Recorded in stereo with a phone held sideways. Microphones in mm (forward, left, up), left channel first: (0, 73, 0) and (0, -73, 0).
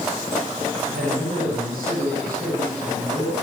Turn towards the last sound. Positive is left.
turn(degrees=-85)